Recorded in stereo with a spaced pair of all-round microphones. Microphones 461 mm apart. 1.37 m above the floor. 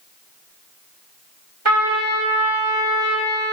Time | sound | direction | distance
1.6 | a trumpet | 85° right | 2 m